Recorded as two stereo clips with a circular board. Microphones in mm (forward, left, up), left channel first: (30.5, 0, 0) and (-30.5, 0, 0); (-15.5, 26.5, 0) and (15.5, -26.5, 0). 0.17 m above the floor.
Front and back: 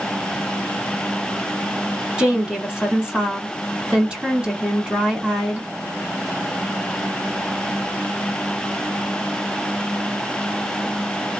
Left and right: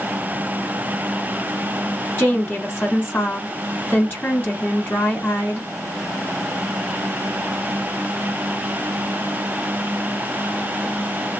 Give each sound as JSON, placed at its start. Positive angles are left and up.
{"t": 2.2, "sound": "a woman speaking", "azimuth_deg": 120, "distance_m": 1.4}